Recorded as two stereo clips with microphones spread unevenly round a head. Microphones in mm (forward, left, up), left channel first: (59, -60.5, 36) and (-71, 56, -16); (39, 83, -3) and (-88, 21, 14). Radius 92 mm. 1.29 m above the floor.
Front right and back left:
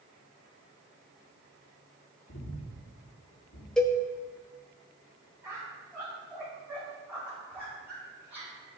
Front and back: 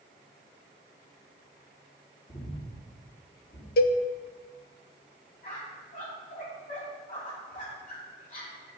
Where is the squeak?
55° left, 5 m.